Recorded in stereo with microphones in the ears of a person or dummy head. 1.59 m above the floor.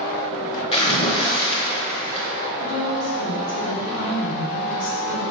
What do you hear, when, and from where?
0.7 s a splash: 35° left (ahead or behind), 0.9 m
2.6 s a woman speaking: 85° left, 1.9 m